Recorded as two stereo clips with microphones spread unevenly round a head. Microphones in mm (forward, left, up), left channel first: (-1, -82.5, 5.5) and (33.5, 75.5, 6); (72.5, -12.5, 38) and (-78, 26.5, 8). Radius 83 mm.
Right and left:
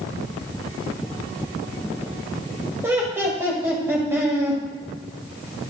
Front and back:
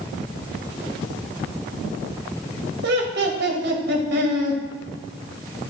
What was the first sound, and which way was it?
Laughter, 150° left.